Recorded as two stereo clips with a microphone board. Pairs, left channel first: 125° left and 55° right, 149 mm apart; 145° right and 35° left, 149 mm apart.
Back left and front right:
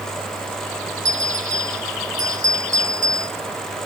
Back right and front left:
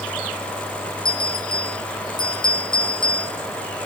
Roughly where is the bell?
Right.